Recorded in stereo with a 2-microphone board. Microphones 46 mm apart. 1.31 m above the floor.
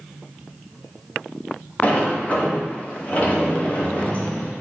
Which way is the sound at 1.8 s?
30° left (ahead or behind).